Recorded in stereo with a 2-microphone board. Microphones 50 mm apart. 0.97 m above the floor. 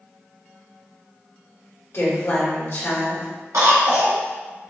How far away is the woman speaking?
About 1.6 m.